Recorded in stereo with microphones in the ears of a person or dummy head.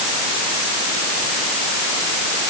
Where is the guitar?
No guitar in this recording.